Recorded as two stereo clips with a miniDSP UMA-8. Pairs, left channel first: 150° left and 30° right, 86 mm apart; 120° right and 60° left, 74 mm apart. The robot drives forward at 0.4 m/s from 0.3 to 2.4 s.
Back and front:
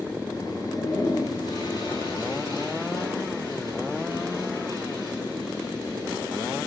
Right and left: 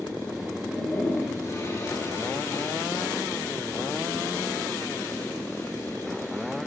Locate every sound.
0.6 s a toilet flushing: 175° right, 6 m